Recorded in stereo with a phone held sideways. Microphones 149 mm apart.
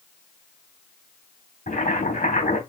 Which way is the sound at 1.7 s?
70° left (ahead or behind).